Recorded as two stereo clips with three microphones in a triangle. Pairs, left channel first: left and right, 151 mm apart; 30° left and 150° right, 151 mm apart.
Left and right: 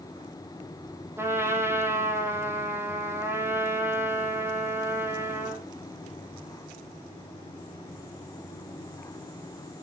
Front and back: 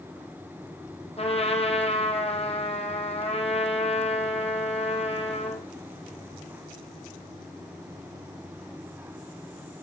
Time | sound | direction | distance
1.2 | a trumpet | 15° right | 3 m